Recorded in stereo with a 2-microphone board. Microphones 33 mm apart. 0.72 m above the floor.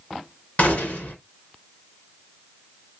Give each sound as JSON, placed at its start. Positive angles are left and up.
{"t": 0.6, "sound": "a gunshot", "side_deg": 50, "distance_m": 1.7}